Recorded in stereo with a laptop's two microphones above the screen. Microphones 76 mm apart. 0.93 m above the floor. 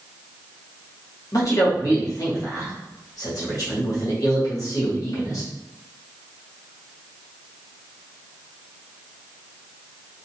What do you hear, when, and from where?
1.3 s a man speaking: 50° left (ahead or behind), 1.2 m